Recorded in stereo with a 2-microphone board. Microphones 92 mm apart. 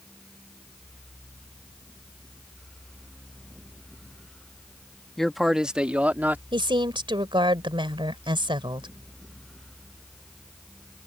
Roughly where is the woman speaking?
Right.